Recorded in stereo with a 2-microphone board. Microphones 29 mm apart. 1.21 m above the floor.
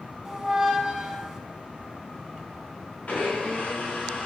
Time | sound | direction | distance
0.2 | a squeak | 20° right (ahead or behind) | 1.1 m
3.1 | a blender | 65° left (ahead or behind) | 4 m